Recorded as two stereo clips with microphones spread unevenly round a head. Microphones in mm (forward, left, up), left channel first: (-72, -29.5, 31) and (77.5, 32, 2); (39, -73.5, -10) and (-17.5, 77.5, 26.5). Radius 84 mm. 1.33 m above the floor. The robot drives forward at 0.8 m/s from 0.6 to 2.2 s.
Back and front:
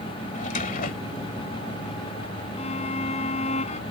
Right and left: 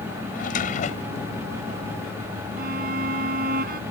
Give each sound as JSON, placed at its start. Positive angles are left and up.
{"t": 0.3, "sound": "a drawer", "azimuth_deg": -120}
{"t": 2.6, "sound": "a violin", "azimuth_deg": 150}